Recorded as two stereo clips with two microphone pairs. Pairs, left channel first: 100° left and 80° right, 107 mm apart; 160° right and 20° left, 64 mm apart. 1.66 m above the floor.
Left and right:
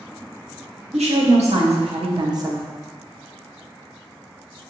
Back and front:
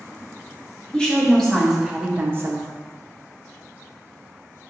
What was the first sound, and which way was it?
A woman speaking, 85° right.